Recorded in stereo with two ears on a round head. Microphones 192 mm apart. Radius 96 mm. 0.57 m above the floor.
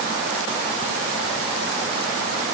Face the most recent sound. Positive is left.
No sound to turn to.